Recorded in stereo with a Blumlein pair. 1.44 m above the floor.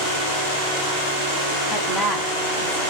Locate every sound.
1.7 s a woman speaking: 15° left, 0.8 m